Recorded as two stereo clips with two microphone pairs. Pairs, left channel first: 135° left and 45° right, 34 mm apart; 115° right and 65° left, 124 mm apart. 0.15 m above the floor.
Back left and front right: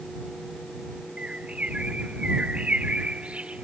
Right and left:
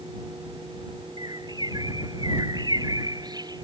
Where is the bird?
10° left.